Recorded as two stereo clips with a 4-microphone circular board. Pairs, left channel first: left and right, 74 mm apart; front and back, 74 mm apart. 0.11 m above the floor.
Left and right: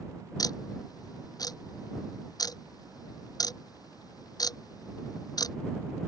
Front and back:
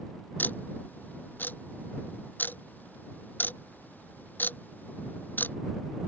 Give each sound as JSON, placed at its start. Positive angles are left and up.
{"t": 0.4, "sound": "ticking", "azimuth_deg": 65}